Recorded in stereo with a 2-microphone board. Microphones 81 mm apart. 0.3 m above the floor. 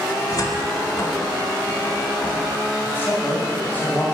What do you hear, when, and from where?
0.3 s a cupboard door: 50° left (ahead or behind), 1.3 m
2.8 s a man speaking: 25° left (ahead or behind), 1.5 m